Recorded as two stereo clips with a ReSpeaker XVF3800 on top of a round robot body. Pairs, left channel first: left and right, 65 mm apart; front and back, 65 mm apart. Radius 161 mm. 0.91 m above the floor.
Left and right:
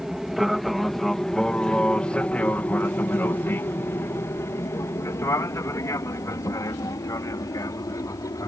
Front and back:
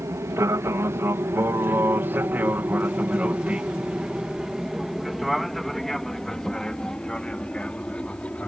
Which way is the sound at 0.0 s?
175° right.